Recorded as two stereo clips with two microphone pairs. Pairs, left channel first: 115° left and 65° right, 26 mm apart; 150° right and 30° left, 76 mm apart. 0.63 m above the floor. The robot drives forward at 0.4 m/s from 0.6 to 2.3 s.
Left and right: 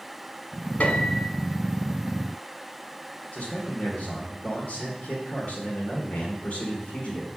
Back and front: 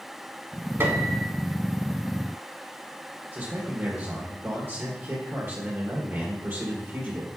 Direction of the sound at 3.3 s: 85° left.